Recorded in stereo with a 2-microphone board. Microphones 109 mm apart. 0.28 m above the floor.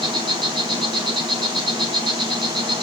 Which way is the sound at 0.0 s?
45° right (ahead or behind).